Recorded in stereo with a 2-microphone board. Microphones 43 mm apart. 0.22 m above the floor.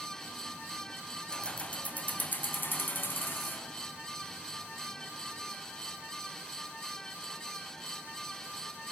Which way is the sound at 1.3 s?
20° left (ahead or behind).